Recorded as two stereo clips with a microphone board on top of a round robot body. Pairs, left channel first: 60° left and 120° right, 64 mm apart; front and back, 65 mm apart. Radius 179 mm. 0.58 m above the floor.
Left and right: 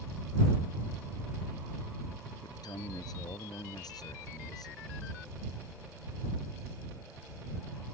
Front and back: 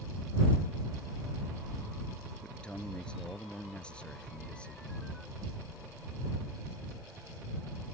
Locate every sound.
2.4 s a man speaking: 75° left